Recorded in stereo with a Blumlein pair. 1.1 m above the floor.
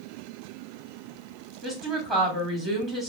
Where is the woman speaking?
15° right, 1.9 m.